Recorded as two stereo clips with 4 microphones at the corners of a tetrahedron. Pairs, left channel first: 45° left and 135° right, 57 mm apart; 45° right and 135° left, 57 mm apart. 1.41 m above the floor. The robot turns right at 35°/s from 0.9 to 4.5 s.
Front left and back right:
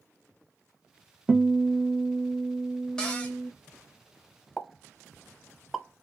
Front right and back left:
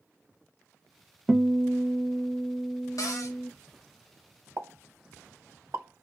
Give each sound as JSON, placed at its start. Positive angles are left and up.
{"t": 1.3, "sound": "a guitar", "azimuth_deg": -160, "distance_m": 0.6}
{"t": 3.0, "sound": "a cupboard door", "azimuth_deg": -35, "distance_m": 1.0}
{"t": 4.6, "sound": "a pop", "azimuth_deg": 125, "distance_m": 0.7}